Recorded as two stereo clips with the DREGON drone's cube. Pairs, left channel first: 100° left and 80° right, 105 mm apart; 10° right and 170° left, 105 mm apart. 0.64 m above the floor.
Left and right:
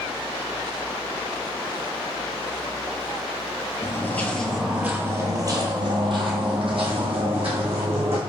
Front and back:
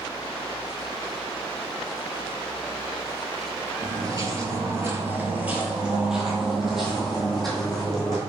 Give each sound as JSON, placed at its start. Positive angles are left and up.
{"t": 3.8, "sound": "footsteps", "azimuth_deg": 145, "distance_m": 0.7}